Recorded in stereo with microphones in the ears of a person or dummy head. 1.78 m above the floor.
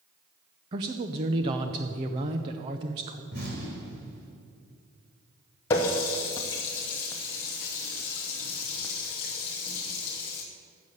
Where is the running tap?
15° left (ahead or behind), 0.7 m.